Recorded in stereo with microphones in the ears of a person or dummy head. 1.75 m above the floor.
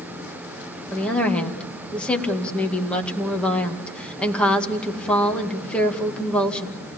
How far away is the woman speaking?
About 2 m.